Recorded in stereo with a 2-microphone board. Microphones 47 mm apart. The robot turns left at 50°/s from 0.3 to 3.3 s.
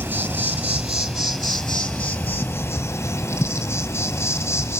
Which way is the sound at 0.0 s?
120° right.